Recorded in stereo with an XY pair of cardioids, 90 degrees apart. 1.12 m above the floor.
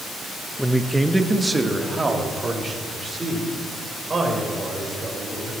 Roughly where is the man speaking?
Ahead.